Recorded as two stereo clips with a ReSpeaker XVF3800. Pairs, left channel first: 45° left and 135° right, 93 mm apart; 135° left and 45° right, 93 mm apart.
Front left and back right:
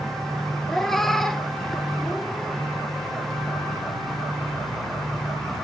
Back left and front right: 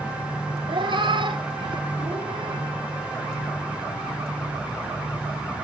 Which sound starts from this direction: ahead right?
A cat meowing, at 0.7 s.